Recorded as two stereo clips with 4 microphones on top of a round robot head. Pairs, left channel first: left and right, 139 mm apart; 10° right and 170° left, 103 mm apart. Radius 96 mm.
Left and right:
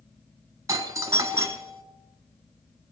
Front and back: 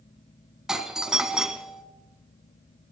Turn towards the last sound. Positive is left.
turn(degrees=-110)